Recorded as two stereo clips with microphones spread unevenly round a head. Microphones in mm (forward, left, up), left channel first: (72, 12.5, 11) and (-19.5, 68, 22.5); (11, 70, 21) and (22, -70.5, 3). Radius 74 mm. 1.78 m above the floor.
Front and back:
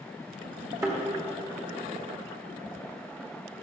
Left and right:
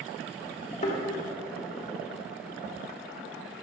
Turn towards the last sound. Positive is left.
turn(degrees=105)